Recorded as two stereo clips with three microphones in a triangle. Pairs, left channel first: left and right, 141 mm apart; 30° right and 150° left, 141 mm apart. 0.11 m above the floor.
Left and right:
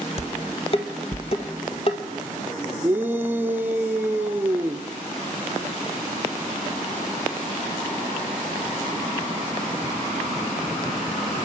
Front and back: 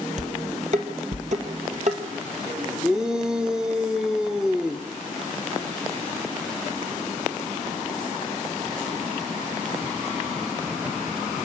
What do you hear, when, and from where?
0.2 s dishes clattering: 130° left, 1.7 m
2.8 s a shout: 135° right, 1.1 m